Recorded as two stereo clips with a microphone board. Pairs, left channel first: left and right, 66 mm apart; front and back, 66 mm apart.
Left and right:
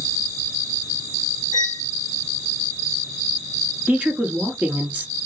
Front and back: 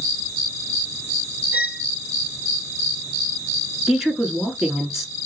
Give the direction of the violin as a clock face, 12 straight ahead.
4 o'clock.